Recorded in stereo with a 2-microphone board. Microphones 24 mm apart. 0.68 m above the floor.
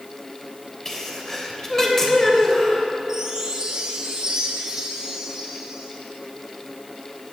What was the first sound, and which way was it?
A sneeze, 15° left (ahead or behind).